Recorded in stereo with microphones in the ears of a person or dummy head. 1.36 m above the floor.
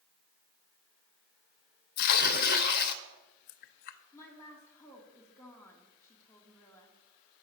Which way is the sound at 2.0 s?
50° left (ahead or behind).